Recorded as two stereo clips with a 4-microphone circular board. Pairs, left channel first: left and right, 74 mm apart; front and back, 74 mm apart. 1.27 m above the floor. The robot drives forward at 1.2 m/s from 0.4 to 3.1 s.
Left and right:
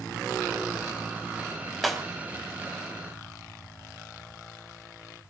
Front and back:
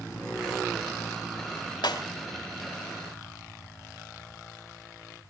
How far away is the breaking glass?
About 4 m.